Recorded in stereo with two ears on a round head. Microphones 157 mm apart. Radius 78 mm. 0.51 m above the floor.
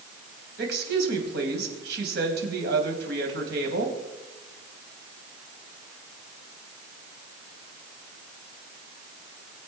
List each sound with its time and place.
0.6 s a woman speaking: 65° right (ahead or behind), 3.5 m